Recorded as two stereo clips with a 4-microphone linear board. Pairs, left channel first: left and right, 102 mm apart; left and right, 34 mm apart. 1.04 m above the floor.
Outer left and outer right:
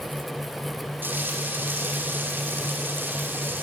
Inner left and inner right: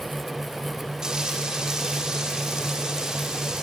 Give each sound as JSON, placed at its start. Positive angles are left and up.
{"t": 1.0, "sound": "frying", "side_deg": -20, "distance_m": 3.0}